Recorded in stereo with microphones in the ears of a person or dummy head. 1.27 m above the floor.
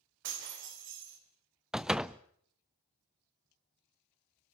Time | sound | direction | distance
0.2 | breaking glass | 65° right (ahead or behind) | 3.5 m
1.7 | a door slam | 5° right (ahead or behind) | 0.5 m